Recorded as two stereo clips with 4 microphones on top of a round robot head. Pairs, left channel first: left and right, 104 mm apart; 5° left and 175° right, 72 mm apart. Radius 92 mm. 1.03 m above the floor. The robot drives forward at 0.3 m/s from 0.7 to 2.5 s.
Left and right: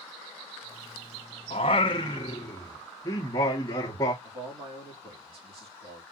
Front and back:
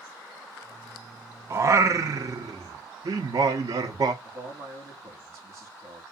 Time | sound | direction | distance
1.5 | singing | 135° left | 0.5 m
4.2 | a man speaking | 125° right | 2.5 m